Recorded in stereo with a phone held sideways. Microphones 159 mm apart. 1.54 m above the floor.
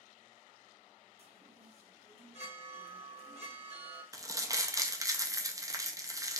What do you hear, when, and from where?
1.2 s a chime: 45° right (ahead or behind), 0.9 m
4.1 s crumpling: 20° right (ahead or behind), 0.5 m